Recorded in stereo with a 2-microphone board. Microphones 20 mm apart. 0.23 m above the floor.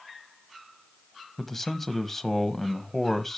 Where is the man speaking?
10° left (ahead or behind), 1.0 m.